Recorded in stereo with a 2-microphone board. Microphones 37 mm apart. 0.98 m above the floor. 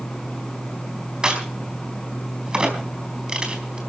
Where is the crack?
25° right (ahead or behind), 4 m.